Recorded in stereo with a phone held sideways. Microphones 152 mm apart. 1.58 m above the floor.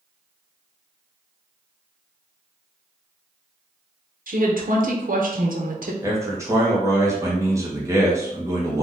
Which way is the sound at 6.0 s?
20° right (ahead or behind).